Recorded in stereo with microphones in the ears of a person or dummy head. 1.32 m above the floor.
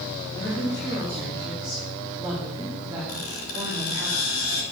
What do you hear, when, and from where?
0.3 s a woman speaking: 20° left (ahead or behind), 2.5 m; by 4.1 s 30° right (ahead or behind), 2 m
3.1 s a squeak: 75° left (ahead or behind), 4 m